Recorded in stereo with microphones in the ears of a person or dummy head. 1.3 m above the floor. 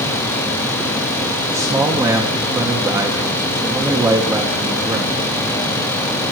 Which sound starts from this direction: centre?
A man speaking, at 1.5 s.